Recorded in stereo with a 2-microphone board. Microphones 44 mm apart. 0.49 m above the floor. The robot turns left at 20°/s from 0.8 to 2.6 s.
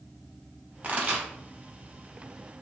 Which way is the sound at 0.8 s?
35° right (ahead or behind).